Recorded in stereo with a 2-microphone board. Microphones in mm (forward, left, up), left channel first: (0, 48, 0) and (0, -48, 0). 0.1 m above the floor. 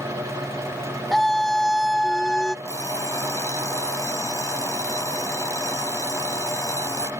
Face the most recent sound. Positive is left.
turn(degrees=30)  # may be behind; listen again after turning